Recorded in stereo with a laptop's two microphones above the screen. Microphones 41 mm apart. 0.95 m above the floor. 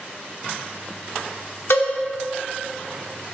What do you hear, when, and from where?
1.7 s a cowbell: 80° left, 1.6 m